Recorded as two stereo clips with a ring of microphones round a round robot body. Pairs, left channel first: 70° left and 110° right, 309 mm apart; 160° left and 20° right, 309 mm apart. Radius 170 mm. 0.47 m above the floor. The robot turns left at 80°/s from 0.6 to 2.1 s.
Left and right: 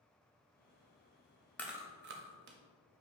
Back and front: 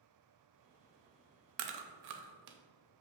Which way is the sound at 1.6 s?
15° right.